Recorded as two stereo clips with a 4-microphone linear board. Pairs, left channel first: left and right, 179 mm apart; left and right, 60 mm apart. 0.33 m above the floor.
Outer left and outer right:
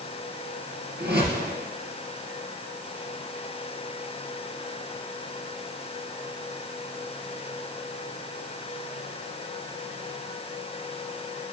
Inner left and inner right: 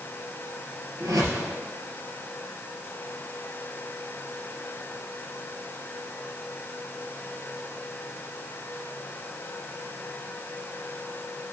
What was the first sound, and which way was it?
A whoosh, 65° right (ahead or behind).